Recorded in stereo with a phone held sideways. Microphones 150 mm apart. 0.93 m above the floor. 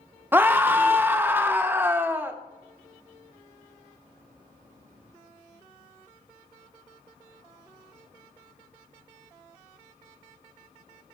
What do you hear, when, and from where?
0.3 s a scream: 15° right (ahead or behind), 0.6 m